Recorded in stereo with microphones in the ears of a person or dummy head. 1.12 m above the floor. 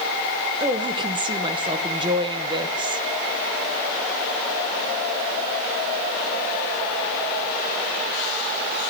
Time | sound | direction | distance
0.6 | a woman speaking | 20° right (ahead or behind) | 0.9 m